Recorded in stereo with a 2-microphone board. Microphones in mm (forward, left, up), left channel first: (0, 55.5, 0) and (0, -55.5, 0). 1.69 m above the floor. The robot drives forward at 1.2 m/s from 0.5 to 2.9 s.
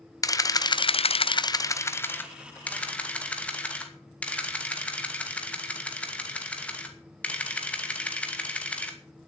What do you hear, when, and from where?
0.2 s a camera shutter: 30° left (ahead or behind), 0.8 m; by 9.0 s 10° left (ahead or behind), 2.5 m